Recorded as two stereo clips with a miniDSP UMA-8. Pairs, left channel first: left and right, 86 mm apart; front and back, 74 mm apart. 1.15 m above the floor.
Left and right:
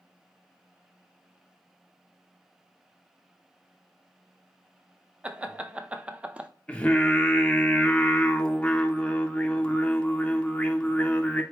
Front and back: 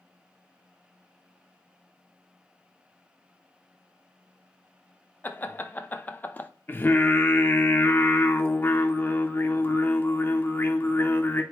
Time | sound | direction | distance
5.2 | laughter | 30° right | 0.6 m
6.7 | singing | 30° left | 0.6 m